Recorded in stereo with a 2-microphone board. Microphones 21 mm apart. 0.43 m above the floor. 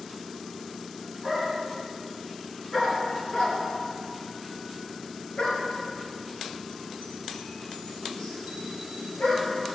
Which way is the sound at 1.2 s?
Centre (ahead or behind).